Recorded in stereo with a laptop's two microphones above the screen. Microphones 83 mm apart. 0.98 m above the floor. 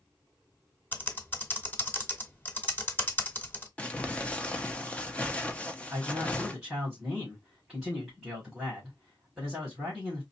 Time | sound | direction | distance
0.9 | typing on a keyboard | 20° left (ahead or behind) | 1.0 m
3.8 | crumpling | 15° left (ahead or behind) | 0.7 m
5.9 | a man speaking | 10° right (ahead or behind) | 2.5 m